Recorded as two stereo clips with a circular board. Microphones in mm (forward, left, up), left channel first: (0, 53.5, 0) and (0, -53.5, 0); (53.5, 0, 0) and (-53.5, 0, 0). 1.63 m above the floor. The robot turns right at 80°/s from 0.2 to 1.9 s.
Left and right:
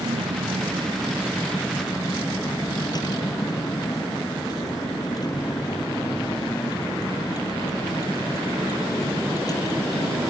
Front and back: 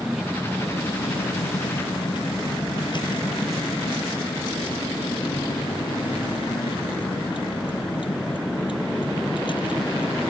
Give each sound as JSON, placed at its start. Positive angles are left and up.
{"t": 0.0, "sound": "a vehicle", "azimuth_deg": -95}